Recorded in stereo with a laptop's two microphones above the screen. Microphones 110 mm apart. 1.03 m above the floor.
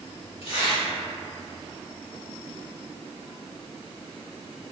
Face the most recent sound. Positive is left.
turn(degrees=60)  # may be behind; listen again after turning